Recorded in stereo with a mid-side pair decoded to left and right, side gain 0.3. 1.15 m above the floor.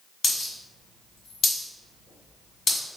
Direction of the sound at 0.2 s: 65° left.